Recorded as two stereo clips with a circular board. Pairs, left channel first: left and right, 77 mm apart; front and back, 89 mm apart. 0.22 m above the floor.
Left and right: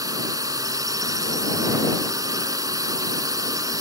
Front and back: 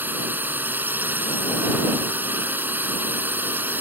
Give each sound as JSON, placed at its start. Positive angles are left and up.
{"t": 0.0, "sound": "a drone", "azimuth_deg": -115}